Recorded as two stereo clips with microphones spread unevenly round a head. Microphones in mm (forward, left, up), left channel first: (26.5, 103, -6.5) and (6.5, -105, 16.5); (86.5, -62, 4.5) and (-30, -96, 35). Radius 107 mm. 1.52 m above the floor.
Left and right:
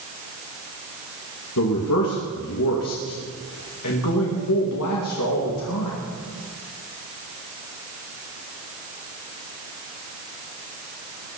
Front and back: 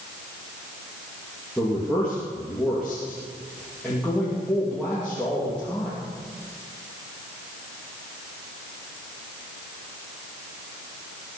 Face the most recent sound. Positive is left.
turn(degrees=105)